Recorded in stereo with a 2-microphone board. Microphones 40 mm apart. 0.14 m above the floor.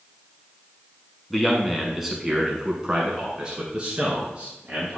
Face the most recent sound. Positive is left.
turn(degrees=-30)  # may be behind; listen again after turning